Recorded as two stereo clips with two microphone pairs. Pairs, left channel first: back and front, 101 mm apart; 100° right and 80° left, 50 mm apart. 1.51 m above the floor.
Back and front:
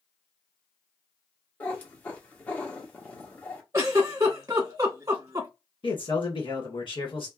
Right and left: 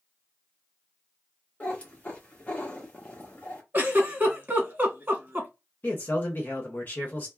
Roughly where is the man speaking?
Behind right.